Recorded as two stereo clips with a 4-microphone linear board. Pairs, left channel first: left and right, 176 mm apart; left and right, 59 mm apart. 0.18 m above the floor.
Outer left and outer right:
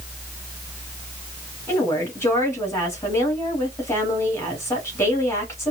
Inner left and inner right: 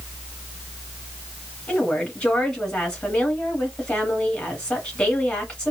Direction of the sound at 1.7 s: 15° left (ahead or behind).